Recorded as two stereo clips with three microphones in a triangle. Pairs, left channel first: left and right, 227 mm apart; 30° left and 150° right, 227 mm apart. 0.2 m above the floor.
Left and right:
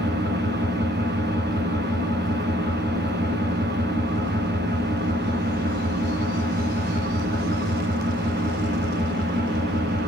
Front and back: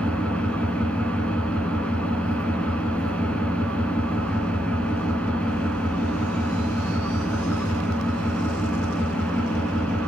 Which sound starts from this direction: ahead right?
An engine running, at 0.0 s.